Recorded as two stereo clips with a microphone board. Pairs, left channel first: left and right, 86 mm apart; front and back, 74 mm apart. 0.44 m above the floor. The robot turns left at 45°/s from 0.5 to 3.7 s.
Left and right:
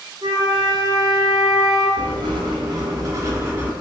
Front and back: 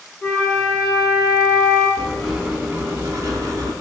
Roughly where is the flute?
Right.